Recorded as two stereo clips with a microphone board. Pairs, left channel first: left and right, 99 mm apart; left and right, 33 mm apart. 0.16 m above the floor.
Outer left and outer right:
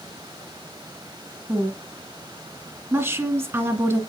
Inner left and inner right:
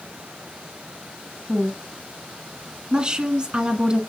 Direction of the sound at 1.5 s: 25° right (ahead or behind).